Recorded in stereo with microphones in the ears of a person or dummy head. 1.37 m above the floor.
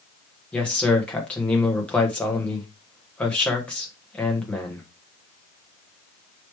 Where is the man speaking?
5° left (ahead or behind), 1.2 m.